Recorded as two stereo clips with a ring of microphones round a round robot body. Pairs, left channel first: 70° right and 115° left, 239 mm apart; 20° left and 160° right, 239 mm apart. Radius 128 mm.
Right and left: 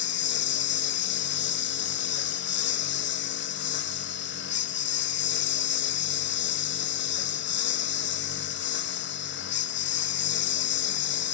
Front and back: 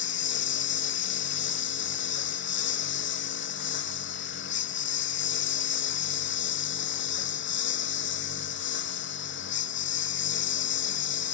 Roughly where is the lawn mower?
Ahead.